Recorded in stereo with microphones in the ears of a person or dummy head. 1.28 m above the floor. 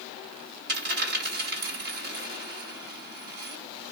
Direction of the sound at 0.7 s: 60° right (ahead or behind).